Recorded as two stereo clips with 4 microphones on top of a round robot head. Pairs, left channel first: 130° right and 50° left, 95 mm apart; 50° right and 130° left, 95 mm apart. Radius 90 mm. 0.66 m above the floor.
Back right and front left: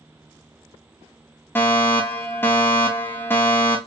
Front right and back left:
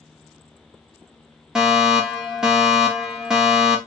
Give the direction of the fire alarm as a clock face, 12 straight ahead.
5 o'clock.